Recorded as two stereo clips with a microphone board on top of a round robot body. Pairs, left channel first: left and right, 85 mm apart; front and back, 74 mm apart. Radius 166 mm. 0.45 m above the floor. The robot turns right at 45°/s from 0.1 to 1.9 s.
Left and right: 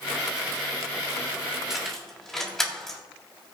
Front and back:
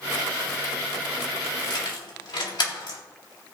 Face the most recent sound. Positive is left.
turn(degrees=5)